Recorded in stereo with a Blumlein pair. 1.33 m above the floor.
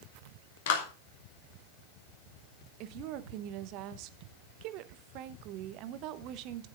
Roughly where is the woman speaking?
Ahead right.